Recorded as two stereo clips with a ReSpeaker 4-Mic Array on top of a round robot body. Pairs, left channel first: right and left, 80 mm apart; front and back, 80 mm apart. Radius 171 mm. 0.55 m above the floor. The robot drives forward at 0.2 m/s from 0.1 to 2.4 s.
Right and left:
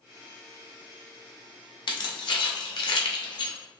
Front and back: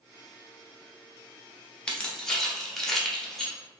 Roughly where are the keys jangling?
Right.